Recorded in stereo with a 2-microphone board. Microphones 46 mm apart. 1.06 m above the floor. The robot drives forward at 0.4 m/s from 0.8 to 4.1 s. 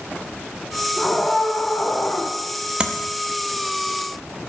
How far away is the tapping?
About 0.8 m.